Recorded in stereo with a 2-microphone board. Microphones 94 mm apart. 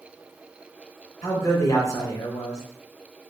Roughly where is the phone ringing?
No phone ringing in this recording.